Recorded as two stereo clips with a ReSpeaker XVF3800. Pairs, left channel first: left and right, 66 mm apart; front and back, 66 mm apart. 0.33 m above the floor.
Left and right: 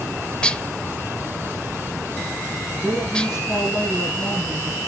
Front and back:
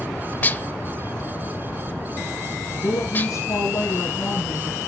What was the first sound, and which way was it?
Dishes clattering, 25° left.